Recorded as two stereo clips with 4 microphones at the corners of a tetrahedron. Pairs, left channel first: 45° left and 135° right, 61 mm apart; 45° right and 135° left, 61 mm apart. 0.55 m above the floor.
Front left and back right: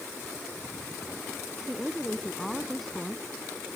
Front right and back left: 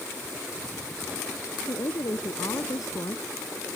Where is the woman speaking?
45° right.